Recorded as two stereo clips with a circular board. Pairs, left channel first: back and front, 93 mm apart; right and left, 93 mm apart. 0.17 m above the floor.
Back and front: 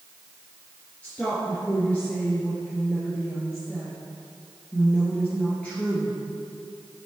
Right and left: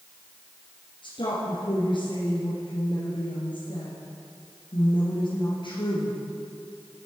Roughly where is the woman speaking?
Right.